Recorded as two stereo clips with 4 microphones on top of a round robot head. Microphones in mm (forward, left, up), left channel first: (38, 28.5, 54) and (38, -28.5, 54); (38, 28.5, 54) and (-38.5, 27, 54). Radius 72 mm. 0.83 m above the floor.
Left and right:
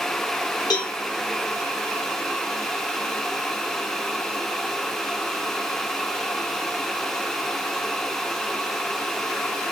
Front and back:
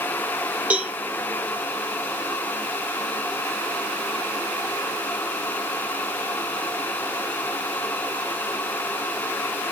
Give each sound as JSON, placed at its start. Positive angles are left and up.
{"t": 0.7, "sound": "a cowbell", "azimuth_deg": 110, "distance_m": 0.8}